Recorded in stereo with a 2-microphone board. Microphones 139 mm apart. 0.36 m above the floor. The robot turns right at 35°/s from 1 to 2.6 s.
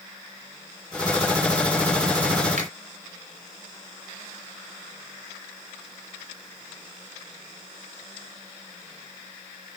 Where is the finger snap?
55° right (ahead or behind), 3 m.